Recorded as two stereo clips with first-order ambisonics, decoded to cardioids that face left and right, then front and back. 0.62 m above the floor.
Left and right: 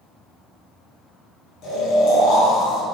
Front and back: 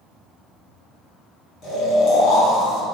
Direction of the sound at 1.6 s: 50° left.